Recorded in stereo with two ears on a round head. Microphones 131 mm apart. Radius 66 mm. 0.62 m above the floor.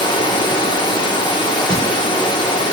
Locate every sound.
0.0 s running water: 30° left (ahead or behind), 0.9 m
1.7 s a thud: 5° left (ahead or behind), 4 m